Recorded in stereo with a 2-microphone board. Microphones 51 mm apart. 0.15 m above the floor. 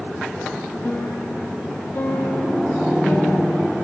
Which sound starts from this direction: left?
A piano, at 0.8 s.